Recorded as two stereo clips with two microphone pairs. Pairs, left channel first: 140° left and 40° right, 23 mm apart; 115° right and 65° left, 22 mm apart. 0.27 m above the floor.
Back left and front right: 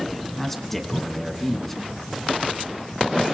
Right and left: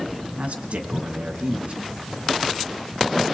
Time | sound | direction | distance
0.4 | a man speaking | 65° left | 2.5 m